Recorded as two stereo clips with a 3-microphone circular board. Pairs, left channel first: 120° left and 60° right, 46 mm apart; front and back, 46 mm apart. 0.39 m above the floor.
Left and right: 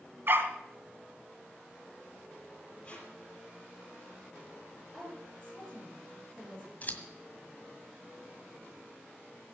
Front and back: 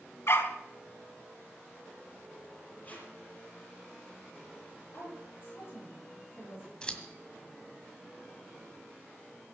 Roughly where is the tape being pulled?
Ahead left.